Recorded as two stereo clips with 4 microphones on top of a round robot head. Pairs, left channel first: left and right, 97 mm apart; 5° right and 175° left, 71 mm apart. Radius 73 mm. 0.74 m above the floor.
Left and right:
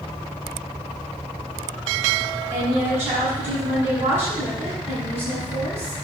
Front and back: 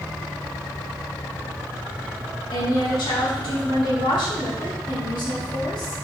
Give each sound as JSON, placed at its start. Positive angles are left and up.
{"t": 2.5, "sound": "a woman speaking", "azimuth_deg": -20, "distance_m": 5.5}